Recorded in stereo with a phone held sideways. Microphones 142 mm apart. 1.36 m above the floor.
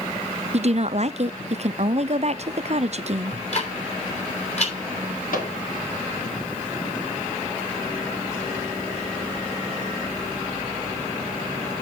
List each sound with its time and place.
0.5 s a woman speaking: 50° right (ahead or behind), 0.6 m
3.3 s ticking: 50° left (ahead or behind), 3 m
5.3 s a microwave: 75° left (ahead or behind), 2.5 m